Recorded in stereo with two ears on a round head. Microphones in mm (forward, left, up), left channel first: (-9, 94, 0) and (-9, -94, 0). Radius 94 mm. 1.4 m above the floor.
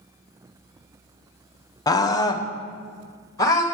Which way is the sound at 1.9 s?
20° left (ahead or behind).